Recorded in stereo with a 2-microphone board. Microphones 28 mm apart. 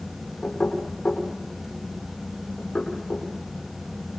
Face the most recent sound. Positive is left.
turn(degrees=50)  # may be behind; listen again after turning